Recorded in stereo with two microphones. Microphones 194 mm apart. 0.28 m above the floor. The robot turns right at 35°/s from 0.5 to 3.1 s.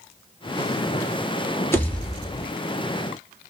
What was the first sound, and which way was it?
A pop, 15° left (ahead or behind).